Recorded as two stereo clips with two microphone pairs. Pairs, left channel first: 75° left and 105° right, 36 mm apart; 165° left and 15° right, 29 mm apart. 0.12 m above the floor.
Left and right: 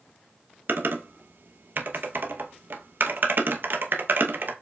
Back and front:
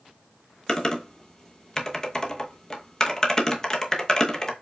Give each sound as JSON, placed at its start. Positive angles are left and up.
{"t": 0.7, "sound": "typing on a keyboard", "azimuth_deg": -125, "distance_m": 0.7}